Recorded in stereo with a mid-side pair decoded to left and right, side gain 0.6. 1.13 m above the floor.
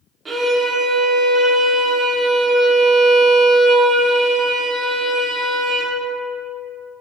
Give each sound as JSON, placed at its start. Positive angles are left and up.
{"t": 0.2, "sound": "a violin", "azimuth_deg": -25, "distance_m": 0.7}